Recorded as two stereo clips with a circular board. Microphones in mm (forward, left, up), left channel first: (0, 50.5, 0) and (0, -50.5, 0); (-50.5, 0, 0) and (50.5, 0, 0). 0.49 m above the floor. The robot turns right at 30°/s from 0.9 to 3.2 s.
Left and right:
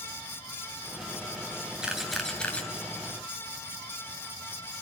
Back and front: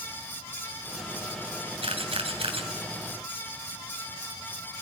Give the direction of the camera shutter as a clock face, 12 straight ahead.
12 o'clock.